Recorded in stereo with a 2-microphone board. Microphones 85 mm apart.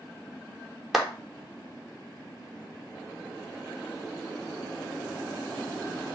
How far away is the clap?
About 0.7 m.